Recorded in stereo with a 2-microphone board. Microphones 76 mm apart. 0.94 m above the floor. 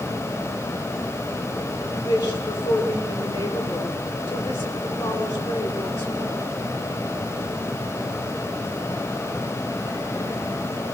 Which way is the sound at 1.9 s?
35° left (ahead or behind).